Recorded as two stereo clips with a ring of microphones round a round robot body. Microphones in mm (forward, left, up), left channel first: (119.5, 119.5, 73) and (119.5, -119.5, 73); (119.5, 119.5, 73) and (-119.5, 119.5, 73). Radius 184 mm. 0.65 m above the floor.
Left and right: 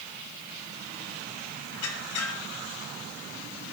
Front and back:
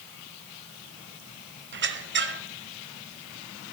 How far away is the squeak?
About 1.2 m.